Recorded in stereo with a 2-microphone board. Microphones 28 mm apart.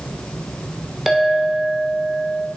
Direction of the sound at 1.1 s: 10° right (ahead or behind).